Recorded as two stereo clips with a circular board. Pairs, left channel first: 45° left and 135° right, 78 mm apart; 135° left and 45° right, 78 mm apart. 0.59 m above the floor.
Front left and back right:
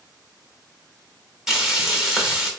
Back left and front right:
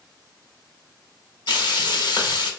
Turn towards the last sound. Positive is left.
turn(degrees=140)